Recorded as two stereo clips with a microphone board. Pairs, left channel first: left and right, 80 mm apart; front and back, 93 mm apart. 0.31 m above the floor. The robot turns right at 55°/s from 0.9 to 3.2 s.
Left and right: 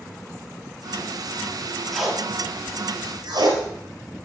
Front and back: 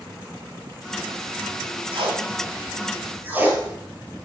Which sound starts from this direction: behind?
Tape being pulled, at 1.9 s.